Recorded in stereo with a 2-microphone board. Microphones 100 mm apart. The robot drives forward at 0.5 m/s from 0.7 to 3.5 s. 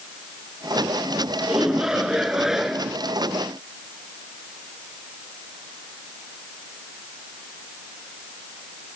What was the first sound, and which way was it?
A shout, 5° right (ahead or behind).